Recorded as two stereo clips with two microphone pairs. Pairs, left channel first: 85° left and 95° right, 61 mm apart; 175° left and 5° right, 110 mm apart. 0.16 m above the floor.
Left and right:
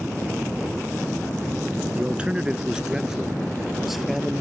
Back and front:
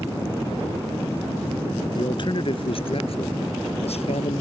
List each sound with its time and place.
1.9 s a man speaking: 155° right; by 4.4 s straight behind